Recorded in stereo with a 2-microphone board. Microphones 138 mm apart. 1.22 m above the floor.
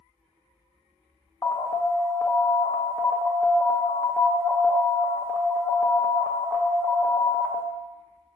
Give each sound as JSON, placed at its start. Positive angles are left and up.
{"t": 1.4, "sound": "an alarm", "side_deg": 20, "distance_m": 0.6}